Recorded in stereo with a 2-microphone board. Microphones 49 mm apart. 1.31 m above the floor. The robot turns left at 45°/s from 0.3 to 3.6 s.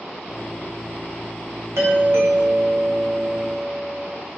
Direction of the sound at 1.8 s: 85° right.